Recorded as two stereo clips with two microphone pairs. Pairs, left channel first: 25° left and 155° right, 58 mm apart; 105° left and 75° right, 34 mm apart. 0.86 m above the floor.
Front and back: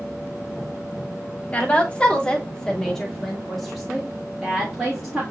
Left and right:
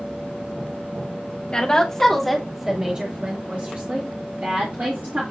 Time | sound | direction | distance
1.5 | a woman speaking | 75° left | 1.0 m